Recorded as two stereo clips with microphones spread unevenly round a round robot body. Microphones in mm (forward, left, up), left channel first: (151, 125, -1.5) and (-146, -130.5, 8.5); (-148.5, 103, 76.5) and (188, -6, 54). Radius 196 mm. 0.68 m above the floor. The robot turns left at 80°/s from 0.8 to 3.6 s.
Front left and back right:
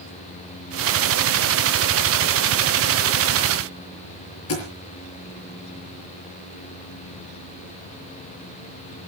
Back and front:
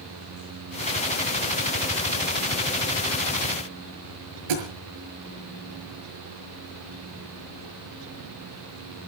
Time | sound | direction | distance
4.5 | a thud | 15° right | 6.5 m